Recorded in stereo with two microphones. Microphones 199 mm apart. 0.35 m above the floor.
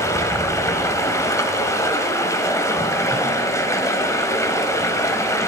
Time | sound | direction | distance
0.0 | running water | 15° left (ahead or behind) | 1.1 m